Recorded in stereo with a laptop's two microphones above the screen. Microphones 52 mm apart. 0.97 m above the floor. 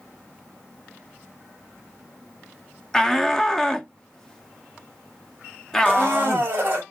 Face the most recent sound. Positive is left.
turn(degrees=-35)  # may be behind; listen again after turning